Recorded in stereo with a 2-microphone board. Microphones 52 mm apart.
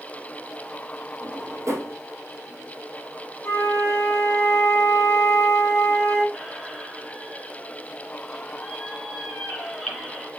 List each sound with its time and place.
1.2 s a drawer: 60° right (ahead or behind), 3 m
3.4 s a flute: 50° left (ahead or behind), 3 m
6.3 s a squeak: 5° left (ahead or behind), 2.5 m